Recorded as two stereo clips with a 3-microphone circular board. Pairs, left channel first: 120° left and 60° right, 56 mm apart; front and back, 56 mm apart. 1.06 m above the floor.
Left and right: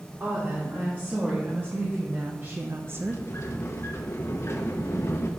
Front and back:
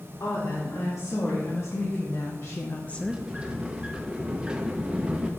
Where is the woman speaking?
Straight ahead, 3 m; by 3.2 s 110° right, 0.5 m.